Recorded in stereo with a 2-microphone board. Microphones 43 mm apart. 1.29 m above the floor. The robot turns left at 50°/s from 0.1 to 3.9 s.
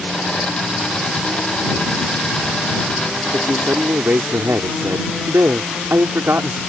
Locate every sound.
3.3 s a man speaking: 70° right (ahead or behind); by 6.6 s 80° right